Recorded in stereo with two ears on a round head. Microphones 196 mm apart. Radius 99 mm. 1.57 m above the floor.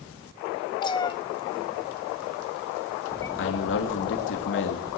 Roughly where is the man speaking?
Left.